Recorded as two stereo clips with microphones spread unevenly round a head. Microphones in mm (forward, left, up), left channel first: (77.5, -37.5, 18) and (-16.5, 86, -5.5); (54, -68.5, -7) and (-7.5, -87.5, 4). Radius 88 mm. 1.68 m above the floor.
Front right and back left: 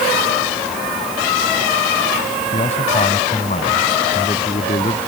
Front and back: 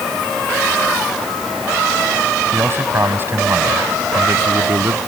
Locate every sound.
2.5 s a man speaking: 110° right; by 5.0 s 115° right